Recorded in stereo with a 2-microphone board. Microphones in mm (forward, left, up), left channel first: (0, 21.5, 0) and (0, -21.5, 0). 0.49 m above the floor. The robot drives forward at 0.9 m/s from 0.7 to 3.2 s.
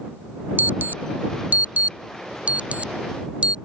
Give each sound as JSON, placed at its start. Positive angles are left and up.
{"t": 0.6, "sound": "an alarm", "side_deg": -50}